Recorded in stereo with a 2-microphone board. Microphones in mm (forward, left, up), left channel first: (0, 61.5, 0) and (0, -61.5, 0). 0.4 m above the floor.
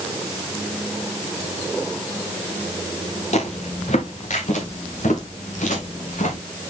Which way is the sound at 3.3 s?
65° left (ahead or behind).